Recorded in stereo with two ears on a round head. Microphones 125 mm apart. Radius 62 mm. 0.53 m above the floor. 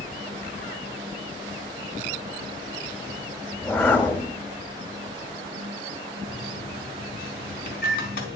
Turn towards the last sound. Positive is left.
turn(degrees=75)  # may be behind; listen again after turning